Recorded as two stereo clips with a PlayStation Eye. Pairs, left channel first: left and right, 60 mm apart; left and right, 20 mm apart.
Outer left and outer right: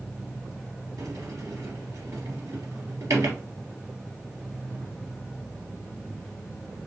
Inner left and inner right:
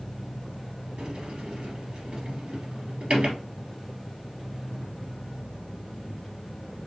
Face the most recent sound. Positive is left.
turn(degrees=-65)  # may be behind; listen again after turning